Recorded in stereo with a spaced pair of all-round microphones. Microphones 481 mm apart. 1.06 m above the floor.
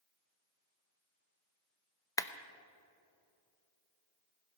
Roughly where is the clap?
Centre.